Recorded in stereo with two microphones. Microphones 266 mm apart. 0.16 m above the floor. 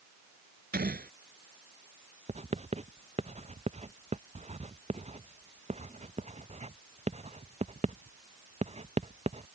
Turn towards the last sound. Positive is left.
turn(degrees=-25)  # may be behind; listen again after turning